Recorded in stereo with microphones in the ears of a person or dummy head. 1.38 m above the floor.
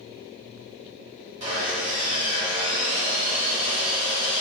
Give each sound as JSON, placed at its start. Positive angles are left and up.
{"t": 1.4, "sound": "sawing", "side_deg": -30, "distance_m": 1.1}